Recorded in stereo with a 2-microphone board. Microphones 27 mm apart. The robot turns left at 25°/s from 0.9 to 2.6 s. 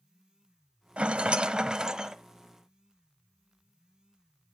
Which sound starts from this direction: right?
A rattle, at 1.0 s.